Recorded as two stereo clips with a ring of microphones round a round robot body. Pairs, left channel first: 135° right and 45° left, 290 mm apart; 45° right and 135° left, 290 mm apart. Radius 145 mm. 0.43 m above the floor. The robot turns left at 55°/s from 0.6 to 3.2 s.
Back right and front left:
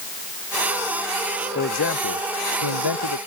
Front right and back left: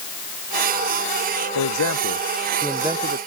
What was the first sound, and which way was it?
A man speaking, 75° right.